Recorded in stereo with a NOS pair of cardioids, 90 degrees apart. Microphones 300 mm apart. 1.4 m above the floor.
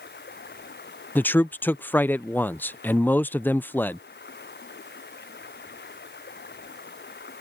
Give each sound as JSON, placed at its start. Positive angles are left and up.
{"t": 0.0, "sound": "running water", "azimuth_deg": 35}
{"t": 1.1, "sound": "a man speaking", "azimuth_deg": 5}